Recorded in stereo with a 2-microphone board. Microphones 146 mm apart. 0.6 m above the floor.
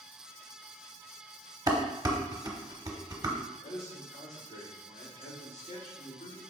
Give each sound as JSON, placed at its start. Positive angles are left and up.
{"t": 1.7, "sound": "dishes clattering", "side_deg": -25, "distance_m": 0.8}
{"t": 3.4, "sound": "a man speaking", "side_deg": 55, "distance_m": 1.7}